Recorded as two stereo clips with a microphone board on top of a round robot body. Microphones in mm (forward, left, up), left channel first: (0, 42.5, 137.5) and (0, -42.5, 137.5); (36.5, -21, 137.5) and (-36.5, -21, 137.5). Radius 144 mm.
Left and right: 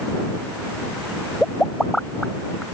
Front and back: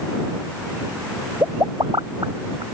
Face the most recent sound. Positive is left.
turn(degrees=175)